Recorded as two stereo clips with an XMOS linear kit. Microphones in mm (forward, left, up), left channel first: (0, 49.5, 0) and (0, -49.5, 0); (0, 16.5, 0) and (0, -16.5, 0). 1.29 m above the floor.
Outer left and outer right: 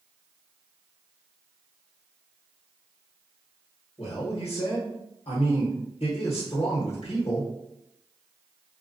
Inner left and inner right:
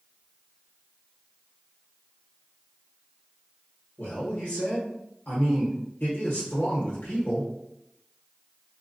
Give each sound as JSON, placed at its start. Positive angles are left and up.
{"t": 4.0, "sound": "a man speaking", "side_deg": 85, "distance_m": 1.1}